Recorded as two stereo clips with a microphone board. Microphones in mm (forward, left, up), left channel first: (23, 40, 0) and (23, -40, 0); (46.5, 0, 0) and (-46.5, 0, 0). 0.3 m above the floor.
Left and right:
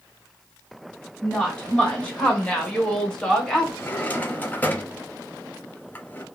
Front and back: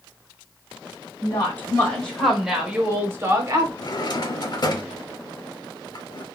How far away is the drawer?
About 0.5 m.